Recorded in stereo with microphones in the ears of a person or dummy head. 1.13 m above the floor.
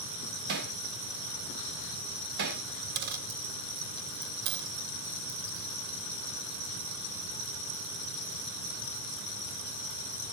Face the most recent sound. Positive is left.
turn(degrees=-50)  # may be behind; listen again after turning